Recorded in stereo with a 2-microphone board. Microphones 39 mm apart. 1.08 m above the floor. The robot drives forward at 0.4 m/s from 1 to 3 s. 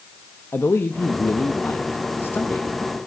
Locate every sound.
0.5 s a man speaking: 85° left, 1.1 m; by 2.7 s 60° left (ahead or behind), 1.3 m